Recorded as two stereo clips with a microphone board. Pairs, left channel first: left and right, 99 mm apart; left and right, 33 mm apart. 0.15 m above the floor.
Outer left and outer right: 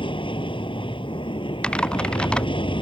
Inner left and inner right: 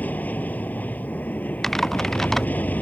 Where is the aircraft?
60° left (ahead or behind).